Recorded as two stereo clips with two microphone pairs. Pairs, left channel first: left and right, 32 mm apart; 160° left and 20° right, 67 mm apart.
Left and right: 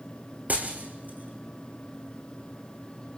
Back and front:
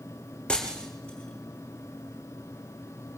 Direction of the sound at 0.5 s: 120° right.